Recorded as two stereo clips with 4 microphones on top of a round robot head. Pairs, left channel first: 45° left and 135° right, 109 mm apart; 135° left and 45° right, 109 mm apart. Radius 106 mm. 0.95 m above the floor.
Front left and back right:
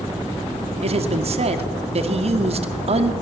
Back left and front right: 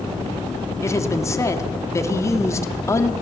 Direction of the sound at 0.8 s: 160° right.